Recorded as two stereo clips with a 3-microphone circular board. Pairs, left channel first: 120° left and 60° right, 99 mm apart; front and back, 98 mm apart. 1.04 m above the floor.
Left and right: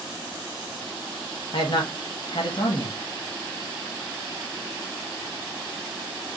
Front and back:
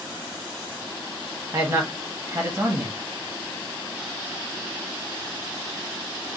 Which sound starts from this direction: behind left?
A man speaking, at 1.5 s.